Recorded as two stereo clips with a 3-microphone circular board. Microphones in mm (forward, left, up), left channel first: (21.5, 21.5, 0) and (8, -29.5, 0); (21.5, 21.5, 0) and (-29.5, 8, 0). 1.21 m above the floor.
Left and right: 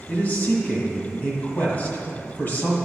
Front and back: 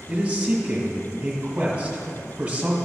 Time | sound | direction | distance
0.1 | a man speaking | 125° left | 1.6 m